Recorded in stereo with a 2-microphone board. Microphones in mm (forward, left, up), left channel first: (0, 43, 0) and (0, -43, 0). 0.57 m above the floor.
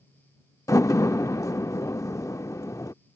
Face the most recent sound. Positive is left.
turn(degrees=40)  # may be behind; listen again after turning